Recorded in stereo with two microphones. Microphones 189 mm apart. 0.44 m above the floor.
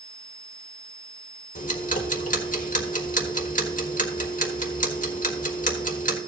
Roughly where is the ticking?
Left.